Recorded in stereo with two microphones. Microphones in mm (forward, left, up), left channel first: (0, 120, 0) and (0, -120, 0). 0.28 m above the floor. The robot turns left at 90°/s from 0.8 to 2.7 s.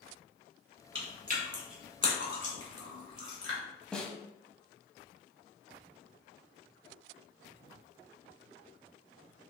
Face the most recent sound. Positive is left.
turn(degrees=5)  # may be behind; listen again after turning